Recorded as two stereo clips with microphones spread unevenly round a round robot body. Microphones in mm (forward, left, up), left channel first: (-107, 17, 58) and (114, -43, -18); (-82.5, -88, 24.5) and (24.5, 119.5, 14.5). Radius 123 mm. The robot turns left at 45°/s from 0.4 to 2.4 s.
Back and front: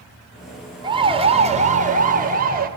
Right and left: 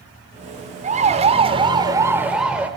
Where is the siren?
20° left, 2 m; by 2.7 s 20° right, 2.5 m.